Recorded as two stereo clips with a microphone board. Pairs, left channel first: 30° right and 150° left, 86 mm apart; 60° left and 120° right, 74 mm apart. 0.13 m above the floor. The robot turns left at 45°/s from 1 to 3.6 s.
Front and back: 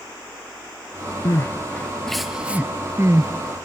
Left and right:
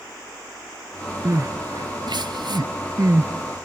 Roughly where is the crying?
Right.